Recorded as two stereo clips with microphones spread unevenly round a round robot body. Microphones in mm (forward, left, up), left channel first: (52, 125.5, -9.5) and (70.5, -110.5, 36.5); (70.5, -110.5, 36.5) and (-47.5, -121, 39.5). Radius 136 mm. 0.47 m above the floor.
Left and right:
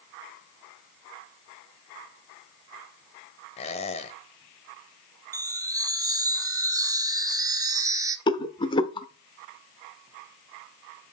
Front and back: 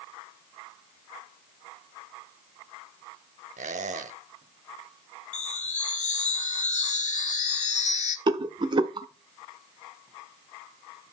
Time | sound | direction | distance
3.6 | a squeak | 160° left | 0.8 m
5.3 | a chime | 10° right | 1.5 m
8.3 | a rattle | 145° left | 0.7 m